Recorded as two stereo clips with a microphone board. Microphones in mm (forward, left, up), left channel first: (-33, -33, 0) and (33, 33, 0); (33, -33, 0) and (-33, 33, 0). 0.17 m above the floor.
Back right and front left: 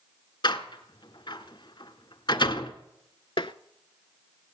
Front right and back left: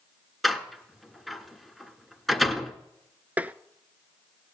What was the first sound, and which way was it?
A door slam, 135° right.